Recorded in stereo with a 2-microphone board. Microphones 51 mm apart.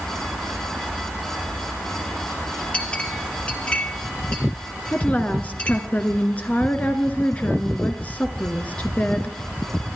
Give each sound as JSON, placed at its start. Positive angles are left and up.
{"t": 2.7, "sound": "a clink", "side_deg": 25, "distance_m": 2.0}
{"t": 4.9, "sound": "a woman speaking", "side_deg": 30, "distance_m": 1.5}